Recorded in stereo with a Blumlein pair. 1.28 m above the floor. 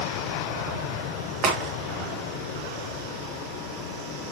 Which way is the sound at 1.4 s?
35° right.